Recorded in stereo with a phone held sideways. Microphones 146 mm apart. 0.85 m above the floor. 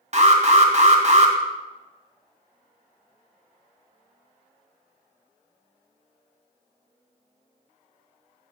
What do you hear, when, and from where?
0.1 s an alarm: 45° right (ahead or behind), 1.2 m